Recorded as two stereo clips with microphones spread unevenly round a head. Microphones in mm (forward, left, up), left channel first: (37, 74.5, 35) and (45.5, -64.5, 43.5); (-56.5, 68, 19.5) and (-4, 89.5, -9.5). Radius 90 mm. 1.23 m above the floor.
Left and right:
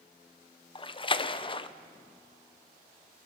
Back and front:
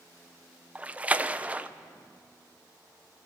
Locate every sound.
0.8 s a splash: 55° left, 0.9 m